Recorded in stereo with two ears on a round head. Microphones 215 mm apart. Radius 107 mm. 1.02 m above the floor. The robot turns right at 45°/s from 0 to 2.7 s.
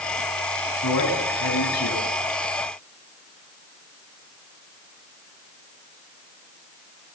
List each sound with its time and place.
0.8 s a man speaking: 65° left, 7 m; by 2.1 s 120° left, 7 m